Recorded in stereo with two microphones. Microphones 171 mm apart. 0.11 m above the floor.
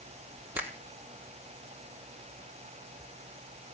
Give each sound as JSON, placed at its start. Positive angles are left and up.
{"t": 0.6, "sound": "a finger snap", "side_deg": -10, "distance_m": 2.5}